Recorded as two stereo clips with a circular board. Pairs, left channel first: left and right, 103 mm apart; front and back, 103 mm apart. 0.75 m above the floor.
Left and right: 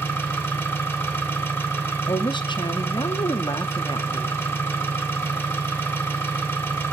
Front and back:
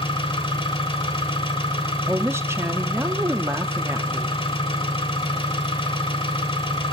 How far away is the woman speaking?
About 0.8 m.